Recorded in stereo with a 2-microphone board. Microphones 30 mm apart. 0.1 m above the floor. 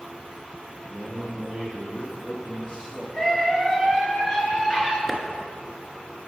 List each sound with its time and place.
0.9 s a man speaking: 10° right (ahead or behind), 1.9 m; by 3.0 s 35° left (ahead or behind), 1.9 m
3.1 s a scream: 25° left (ahead or behind), 1.2 m
5.1 s a clap: centre (ahead or behind), 0.9 m